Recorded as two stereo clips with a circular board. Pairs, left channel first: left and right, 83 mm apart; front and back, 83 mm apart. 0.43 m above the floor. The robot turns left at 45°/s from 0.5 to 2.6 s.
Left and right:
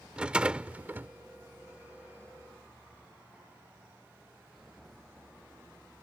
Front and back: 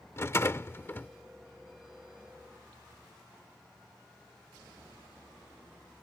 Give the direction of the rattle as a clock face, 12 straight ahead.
1 o'clock.